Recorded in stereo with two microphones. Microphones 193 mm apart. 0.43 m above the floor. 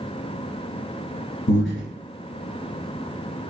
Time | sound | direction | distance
1.5 | breathing | 80° left | 1.2 m